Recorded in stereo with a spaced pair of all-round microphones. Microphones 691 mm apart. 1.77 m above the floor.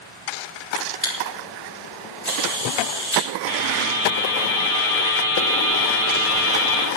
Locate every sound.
0.8 s a camera shutter: 25° left (ahead or behind), 3.5 m
3.5 s a buzzer: 45° left (ahead or behind), 2.5 m